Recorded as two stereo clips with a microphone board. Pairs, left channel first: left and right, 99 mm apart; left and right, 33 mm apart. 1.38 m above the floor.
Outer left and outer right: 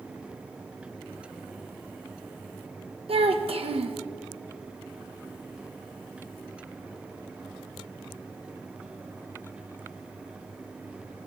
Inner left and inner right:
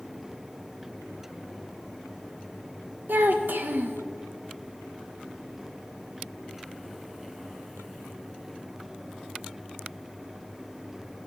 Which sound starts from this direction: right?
A child speaking, at 3.1 s.